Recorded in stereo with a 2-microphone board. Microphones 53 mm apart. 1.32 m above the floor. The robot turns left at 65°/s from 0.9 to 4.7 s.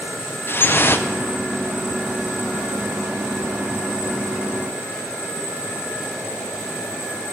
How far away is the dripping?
About 0.6 m.